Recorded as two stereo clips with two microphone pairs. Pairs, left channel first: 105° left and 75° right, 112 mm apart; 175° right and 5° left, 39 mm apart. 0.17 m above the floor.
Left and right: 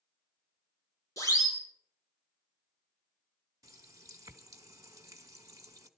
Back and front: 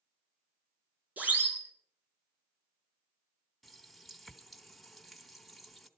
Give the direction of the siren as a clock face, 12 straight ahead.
10 o'clock.